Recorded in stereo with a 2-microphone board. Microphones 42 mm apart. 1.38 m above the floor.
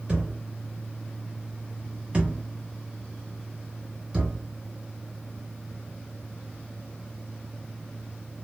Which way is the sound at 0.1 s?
30° right (ahead or behind).